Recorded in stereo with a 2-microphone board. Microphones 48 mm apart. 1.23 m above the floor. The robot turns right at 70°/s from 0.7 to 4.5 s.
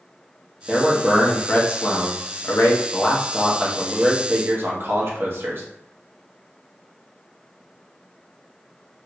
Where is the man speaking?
20° right, 1.0 m; by 5.6 s 115° right, 1.0 m.